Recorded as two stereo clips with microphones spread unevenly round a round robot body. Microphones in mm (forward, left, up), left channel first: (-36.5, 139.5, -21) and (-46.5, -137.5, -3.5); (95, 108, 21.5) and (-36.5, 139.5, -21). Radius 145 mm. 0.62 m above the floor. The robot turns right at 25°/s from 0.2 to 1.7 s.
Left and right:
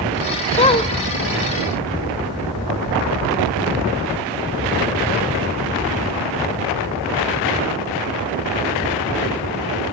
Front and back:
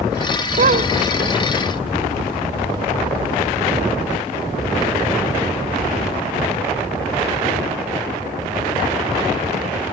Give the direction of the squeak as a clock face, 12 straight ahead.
7 o'clock.